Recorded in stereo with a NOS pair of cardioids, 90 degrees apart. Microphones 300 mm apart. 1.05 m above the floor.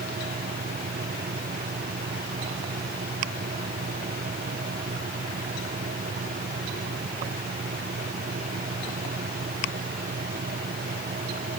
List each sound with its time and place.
0.0 s a fan: 30° right